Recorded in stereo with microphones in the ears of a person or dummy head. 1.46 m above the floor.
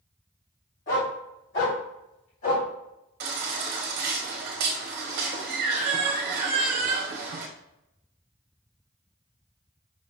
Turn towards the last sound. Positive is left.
turn(degrees=-50)  # may be behind; listen again after turning